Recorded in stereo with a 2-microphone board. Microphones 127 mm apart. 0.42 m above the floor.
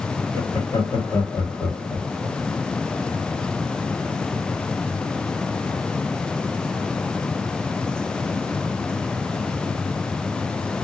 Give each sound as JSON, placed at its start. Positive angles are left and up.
{"t": 0.3, "sound": "laughter", "side_deg": 45, "distance_m": 1.4}